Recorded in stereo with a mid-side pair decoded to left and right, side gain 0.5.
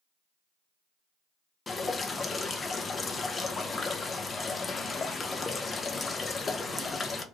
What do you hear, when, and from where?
1.7 s dripping: 35° left, 0.5 m